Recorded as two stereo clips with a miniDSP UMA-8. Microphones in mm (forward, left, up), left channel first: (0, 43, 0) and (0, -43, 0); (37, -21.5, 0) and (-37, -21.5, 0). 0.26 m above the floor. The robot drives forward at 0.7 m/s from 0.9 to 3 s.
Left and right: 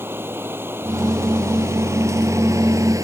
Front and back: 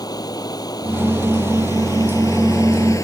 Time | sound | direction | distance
0.0 | running water | 25° right | ?